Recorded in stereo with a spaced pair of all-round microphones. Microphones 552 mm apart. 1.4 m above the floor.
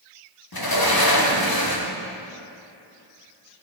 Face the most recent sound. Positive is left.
turn(degrees=40)  # may be behind; listen again after turning